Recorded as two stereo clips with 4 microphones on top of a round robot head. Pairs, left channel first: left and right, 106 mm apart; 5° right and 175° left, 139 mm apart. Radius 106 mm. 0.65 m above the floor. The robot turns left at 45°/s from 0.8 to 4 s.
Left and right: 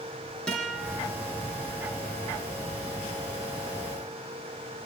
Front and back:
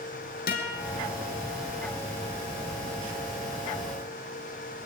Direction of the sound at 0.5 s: 5° left.